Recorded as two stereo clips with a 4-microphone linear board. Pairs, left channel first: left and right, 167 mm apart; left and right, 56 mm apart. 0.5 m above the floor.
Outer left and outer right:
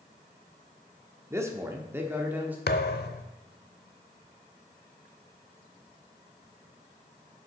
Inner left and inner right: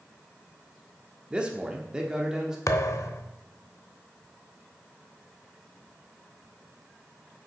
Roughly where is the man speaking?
Centre.